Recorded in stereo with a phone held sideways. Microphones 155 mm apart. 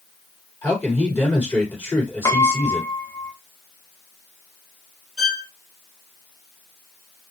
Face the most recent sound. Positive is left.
turn(degrees=5)  # may be behind; listen again after turning